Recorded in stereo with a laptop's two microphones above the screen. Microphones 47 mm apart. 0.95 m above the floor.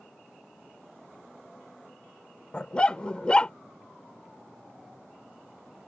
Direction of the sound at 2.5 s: 20° left (ahead or behind).